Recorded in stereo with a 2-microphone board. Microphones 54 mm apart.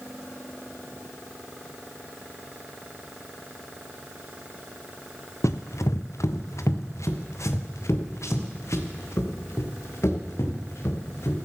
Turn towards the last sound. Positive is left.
turn(degrees=65)  # may be behind; listen again after turning